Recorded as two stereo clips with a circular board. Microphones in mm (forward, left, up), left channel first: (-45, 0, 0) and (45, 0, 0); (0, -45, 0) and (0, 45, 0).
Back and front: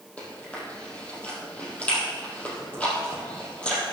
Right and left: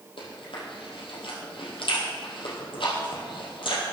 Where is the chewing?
105° right, 3 m.